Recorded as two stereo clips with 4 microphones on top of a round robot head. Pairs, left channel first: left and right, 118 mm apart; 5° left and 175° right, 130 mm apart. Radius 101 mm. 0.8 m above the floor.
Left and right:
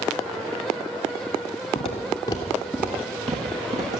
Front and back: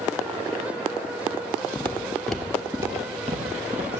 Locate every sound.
1.8 s footsteps: 75° left, 1.3 m; by 4.0 s 125° right, 1.7 m